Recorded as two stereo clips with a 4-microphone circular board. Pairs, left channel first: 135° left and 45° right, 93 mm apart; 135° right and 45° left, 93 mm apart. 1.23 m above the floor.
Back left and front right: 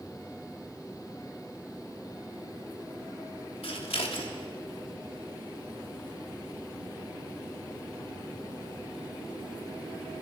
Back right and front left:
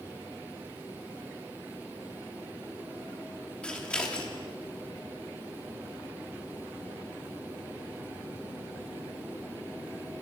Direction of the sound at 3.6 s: 145° left.